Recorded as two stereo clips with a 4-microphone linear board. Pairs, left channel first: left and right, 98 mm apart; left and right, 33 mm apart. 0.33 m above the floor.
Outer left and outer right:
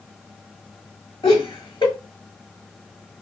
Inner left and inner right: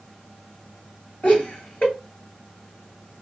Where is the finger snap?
I don't hear a finger snap.